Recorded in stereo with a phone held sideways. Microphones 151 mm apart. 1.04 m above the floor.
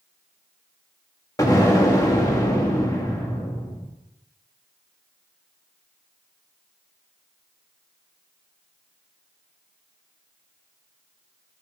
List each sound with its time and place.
1.4 s an explosion: 20° left (ahead or behind), 1.4 m